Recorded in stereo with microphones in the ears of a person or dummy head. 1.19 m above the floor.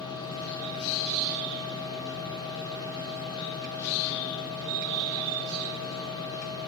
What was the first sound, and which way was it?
A machine running, 25° left (ahead or behind).